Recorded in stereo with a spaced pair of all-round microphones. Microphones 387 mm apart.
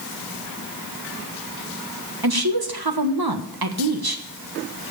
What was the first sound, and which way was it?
A woman speaking, 70° right (ahead or behind).